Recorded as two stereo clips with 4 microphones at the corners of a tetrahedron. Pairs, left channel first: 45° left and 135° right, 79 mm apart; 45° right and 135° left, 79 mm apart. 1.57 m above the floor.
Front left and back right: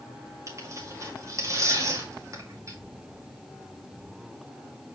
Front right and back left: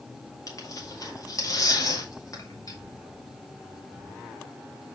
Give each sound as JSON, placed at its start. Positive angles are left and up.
{"t": 0.5, "sound": "tearing paper", "azimuth_deg": -85, "distance_m": 2.0}